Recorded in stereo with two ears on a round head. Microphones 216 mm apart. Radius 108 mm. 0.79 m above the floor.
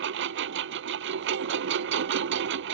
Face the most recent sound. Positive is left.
turn(degrees=-50)  # may be behind; listen again after turning